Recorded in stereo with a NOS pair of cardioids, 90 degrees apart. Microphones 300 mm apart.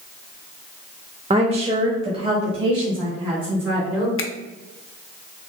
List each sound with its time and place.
1.3 s a woman speaking: 20° right, 0.6 m
4.2 s a finger snap: 45° left, 0.6 m